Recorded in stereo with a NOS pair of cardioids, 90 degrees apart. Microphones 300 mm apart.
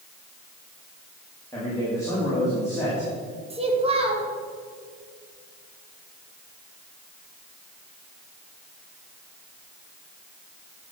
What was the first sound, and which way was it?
A man speaking, 10° left.